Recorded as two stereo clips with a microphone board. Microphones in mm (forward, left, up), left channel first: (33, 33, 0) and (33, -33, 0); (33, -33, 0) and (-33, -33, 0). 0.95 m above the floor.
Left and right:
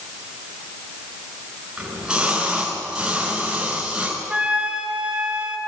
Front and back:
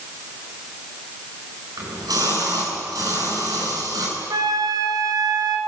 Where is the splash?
170° right, 8.5 m.